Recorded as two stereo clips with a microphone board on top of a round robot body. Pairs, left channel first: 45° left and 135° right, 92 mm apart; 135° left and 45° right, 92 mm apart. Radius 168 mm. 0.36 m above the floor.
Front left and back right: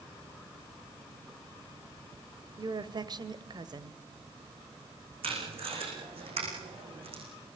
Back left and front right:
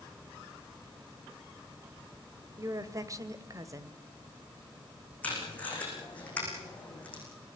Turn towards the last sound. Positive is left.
turn(degrees=-150)